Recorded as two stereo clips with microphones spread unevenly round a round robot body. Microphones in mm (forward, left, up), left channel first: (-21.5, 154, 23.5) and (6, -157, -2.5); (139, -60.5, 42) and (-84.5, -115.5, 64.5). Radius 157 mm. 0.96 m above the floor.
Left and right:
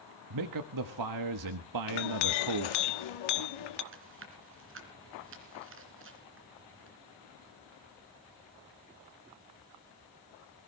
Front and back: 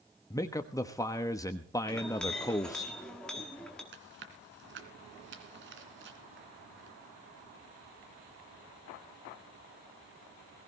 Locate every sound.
0.3 s a man speaking: 60° right, 1.2 m
1.9 s a clink: 100° left, 1.3 m
3.9 s chewing: 135° right, 2.5 m